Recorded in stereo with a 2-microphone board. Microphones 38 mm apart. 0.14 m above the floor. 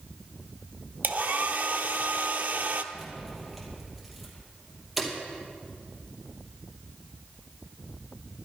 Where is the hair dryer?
60° right (ahead or behind), 0.8 m.